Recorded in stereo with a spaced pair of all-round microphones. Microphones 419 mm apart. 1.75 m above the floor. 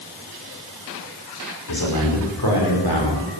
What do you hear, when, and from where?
1.7 s a man speaking: 60° left (ahead or behind), 5 m; by 3.4 s 70° left (ahead or behind), 5 m